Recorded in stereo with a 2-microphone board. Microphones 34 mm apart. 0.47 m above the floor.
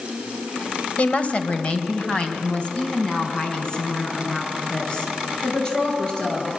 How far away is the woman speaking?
About 2.0 m.